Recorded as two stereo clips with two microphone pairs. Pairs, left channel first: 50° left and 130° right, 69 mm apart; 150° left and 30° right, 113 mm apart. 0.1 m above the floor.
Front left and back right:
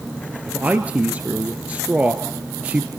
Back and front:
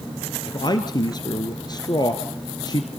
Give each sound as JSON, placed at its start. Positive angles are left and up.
{"t": 0.5, "sound": "a man speaking", "azimuth_deg": 170, "distance_m": 1.5}